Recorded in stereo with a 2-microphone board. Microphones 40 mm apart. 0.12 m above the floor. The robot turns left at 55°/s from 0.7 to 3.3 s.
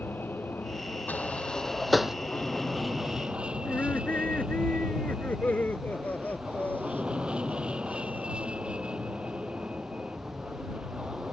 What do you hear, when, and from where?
0.0 s an aircraft: 110° left; by 11.3 s 30° right
1.1 s a sliding door: 40° left (ahead or behind); by 2.2 s 15° right (ahead or behind)
3.6 s laughter: 45° left (ahead or behind)